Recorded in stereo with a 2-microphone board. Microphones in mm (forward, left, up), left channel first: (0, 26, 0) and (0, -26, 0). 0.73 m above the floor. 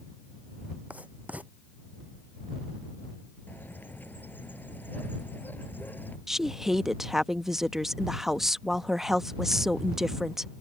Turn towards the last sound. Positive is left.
turn(degrees=-5)  # may be behind; listen again after turning